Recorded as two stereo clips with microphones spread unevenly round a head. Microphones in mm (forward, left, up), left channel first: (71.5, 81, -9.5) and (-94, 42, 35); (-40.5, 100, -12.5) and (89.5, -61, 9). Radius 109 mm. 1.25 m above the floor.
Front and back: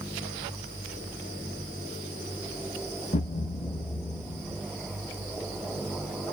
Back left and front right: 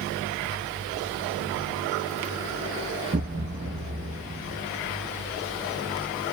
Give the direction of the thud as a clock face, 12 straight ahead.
1 o'clock.